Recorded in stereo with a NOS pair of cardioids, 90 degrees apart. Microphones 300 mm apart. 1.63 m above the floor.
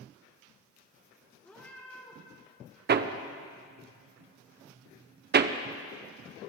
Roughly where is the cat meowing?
Ahead.